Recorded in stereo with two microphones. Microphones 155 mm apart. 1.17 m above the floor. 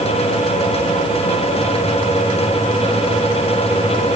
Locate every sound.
Only background noise.